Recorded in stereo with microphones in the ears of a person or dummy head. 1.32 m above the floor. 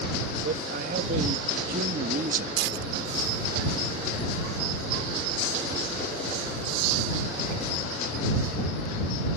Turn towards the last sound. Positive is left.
turn(degrees=-65)  # may be behind; listen again after turning